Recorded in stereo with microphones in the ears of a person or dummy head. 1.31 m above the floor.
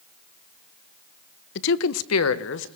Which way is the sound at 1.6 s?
60° left (ahead or behind).